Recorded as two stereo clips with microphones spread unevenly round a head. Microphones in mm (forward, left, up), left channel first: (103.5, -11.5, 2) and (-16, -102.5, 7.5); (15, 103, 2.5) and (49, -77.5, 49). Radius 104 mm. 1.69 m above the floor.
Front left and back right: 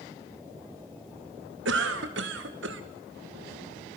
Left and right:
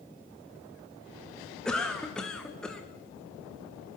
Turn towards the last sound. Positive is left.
turn(degrees=-170)